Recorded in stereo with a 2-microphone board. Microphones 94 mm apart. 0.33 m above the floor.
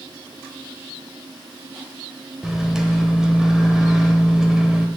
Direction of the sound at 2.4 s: 5° right (ahead or behind).